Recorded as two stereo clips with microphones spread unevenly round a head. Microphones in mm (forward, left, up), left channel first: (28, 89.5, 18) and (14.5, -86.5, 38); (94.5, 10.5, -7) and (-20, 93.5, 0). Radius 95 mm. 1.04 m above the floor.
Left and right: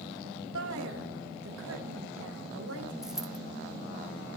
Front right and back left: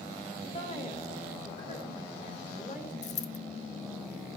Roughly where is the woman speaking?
Right.